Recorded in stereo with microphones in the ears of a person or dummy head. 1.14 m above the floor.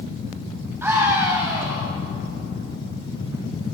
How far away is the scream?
About 7.5 m.